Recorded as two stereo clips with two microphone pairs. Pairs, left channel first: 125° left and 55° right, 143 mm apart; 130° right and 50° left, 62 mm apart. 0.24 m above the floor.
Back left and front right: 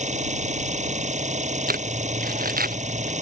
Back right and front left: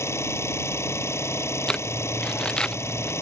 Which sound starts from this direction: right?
An engine running, at 0.0 s.